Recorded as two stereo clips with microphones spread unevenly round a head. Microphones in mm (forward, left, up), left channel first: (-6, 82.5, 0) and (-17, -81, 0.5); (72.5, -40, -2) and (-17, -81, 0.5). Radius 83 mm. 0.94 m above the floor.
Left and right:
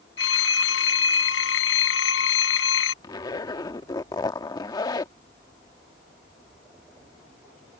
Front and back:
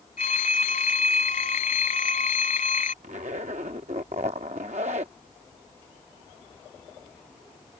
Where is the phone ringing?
70° left.